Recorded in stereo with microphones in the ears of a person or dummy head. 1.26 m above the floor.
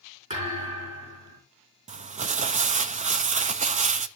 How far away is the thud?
About 5.5 m.